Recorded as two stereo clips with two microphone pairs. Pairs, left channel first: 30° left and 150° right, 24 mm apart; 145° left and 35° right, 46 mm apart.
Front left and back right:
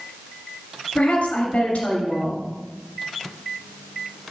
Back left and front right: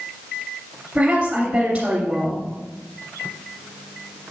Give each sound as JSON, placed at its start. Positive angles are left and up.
{"t": 0.9, "sound": "a woman speaking", "azimuth_deg": 25, "distance_m": 2.5}